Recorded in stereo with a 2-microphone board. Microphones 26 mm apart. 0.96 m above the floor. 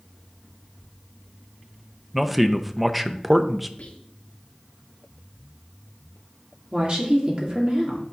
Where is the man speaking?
10° right (ahead or behind), 0.6 m.